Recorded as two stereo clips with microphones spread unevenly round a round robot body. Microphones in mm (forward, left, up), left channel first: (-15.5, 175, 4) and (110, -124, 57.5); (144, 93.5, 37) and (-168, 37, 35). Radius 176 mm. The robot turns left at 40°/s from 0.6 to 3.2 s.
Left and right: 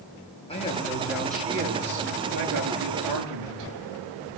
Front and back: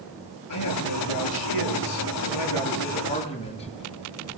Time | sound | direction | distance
0.5 | a man speaking | 40° left | 9.5 m